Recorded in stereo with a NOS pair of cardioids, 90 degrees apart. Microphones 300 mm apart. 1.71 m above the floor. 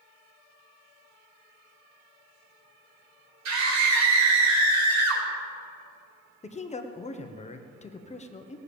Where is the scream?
65° right, 4 m; by 5.2 s 75° right, 5 m.